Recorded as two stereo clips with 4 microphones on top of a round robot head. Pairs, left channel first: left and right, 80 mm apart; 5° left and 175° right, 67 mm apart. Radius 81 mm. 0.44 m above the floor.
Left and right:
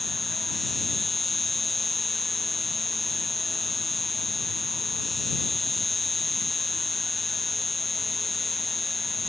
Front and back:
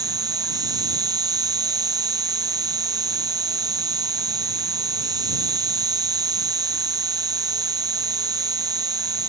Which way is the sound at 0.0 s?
Straight behind.